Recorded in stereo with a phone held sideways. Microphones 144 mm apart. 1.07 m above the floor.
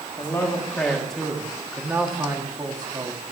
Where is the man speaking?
20° left (ahead or behind), 1.8 m; by 3.2 s 35° right (ahead or behind), 1.8 m.